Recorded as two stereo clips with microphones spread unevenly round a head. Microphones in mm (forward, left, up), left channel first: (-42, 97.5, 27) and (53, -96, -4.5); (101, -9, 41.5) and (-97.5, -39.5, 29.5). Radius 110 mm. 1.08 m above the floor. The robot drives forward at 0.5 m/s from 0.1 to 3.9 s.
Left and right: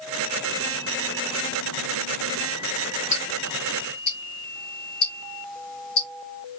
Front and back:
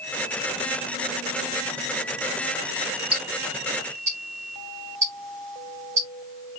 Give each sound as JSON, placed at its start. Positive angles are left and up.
{"t": 3.1, "sound": "ticking", "azimuth_deg": 125, "distance_m": 2.5}